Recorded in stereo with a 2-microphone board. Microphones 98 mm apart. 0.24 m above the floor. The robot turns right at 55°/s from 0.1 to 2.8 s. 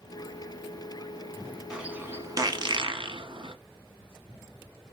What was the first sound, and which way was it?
A bird, 5° right (ahead or behind).